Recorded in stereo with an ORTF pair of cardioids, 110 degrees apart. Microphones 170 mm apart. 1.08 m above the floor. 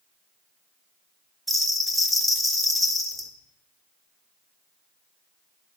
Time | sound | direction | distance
1.5 | a bell | straight ahead | 1.7 m